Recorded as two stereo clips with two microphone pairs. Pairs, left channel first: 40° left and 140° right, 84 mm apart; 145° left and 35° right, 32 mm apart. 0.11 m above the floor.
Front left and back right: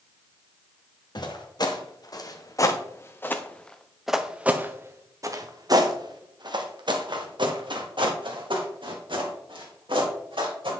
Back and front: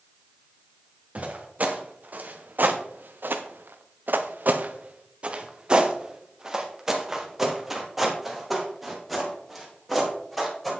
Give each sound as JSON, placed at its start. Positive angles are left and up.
{"t": 1.1, "sound": "footsteps", "azimuth_deg": 10, "distance_m": 1.7}